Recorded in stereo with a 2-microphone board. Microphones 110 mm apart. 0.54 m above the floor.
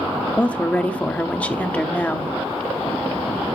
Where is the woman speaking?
10° left (ahead or behind), 1.0 m.